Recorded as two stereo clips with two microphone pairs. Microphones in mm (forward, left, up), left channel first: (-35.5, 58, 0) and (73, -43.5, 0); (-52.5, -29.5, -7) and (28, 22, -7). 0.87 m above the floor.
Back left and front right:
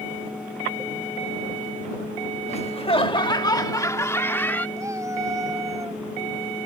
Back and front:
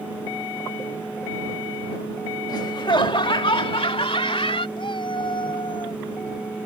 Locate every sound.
2.5 s laughter: 175° left; by 4.7 s 145° right
4.8 s a cat meowing: 115° right